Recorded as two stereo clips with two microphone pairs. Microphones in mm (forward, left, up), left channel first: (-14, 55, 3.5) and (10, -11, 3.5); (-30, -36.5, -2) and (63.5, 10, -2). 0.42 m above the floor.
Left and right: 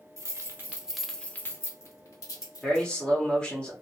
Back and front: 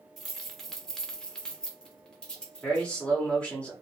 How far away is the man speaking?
About 1.1 m.